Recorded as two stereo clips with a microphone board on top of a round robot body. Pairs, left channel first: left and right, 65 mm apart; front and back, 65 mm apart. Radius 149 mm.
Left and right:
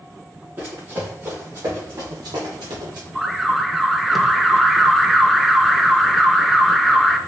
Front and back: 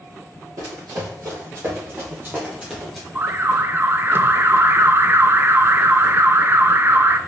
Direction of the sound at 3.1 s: Straight behind.